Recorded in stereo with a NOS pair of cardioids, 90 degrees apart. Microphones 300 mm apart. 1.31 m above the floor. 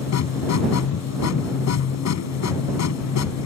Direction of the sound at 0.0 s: 60° left.